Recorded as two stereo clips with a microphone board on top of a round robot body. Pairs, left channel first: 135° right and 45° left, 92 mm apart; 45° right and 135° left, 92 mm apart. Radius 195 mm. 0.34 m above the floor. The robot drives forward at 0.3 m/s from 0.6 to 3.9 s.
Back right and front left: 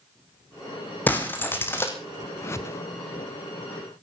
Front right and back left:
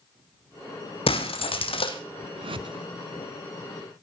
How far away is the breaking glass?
About 2.5 m.